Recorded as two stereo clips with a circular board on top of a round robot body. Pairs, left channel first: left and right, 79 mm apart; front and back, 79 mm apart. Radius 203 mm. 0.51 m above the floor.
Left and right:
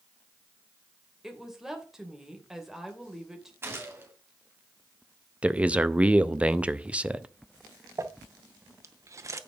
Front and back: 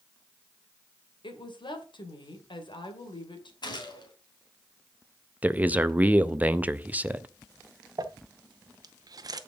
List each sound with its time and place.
1.2 s a woman speaking: 5° right, 2.5 m
3.6 s a gunshot: 30° right, 2.5 m
5.4 s a man speaking: 140° right, 0.9 m
8.0 s crumpling: 140° right, 0.9 m